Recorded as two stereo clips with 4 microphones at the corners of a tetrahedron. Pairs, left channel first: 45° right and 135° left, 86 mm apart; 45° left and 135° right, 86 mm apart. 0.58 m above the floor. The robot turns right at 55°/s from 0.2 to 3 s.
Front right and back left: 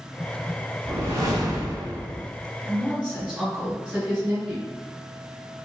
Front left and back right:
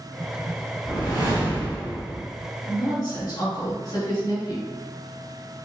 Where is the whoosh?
70° left, 1.5 m; by 2.2 s 145° left, 1.5 m.